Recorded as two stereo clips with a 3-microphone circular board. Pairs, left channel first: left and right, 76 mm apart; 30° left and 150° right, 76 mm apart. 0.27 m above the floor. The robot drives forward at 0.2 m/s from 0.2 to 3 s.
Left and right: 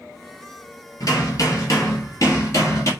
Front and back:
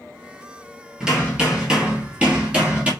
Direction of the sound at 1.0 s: 130° left.